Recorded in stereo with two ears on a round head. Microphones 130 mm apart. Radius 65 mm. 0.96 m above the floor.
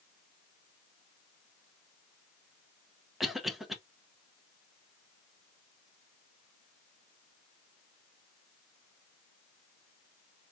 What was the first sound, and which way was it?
A cough, centre (ahead or behind).